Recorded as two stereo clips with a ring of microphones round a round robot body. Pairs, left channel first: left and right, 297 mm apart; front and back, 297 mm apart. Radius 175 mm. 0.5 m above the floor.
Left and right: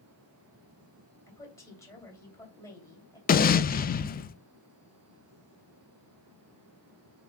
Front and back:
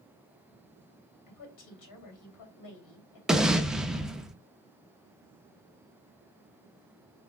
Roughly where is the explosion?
Left.